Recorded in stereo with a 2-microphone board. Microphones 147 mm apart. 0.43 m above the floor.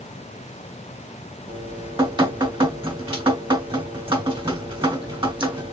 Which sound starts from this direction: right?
Dripping, at 1.5 s.